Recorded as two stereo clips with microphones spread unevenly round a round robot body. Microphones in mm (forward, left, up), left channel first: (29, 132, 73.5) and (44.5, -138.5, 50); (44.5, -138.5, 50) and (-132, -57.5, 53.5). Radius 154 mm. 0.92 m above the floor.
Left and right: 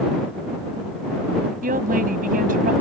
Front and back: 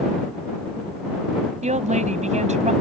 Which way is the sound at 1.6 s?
150° right.